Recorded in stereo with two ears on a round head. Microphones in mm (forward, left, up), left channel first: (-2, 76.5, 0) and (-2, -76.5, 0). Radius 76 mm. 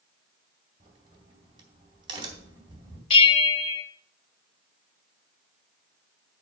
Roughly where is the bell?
Left.